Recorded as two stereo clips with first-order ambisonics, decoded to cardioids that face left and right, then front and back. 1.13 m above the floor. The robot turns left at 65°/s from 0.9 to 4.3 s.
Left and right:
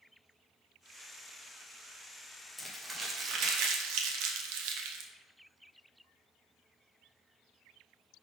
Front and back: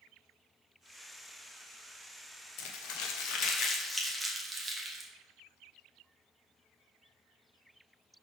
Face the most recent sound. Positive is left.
turn(degrees=-100)